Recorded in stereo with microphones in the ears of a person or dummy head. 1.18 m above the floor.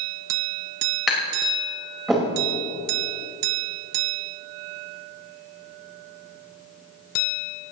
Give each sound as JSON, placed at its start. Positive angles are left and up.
{"t": 1.1, "sound": "tapping", "side_deg": 0, "distance_m": 5.0}